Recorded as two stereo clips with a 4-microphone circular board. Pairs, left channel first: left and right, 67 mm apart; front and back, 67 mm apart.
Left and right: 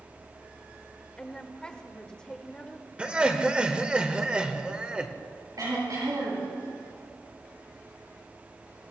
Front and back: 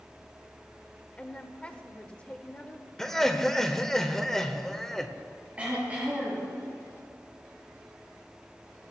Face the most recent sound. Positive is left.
turn(degrees=-110)